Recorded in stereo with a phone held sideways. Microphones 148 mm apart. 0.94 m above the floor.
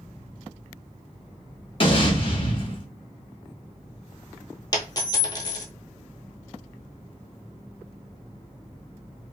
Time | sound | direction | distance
1.8 | an explosion | 40° left (ahead or behind) | 1.1 m
4.7 | a dropped coin | 30° left (ahead or behind) | 1.1 m